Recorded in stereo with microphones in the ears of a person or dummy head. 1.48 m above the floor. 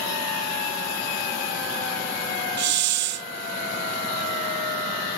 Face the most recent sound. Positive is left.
turn(degrees=-55)  # may be behind; listen again after turning